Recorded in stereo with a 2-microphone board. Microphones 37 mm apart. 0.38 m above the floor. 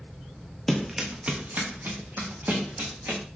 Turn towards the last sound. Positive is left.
turn(degrees=-75)  # may be behind; listen again after turning